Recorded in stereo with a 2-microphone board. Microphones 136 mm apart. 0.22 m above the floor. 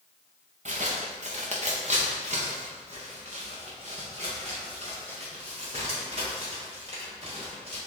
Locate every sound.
0.7 s footsteps: 60° right (ahead or behind), 1.3 m; by 7.8 s 50° right (ahead or behind), 5 m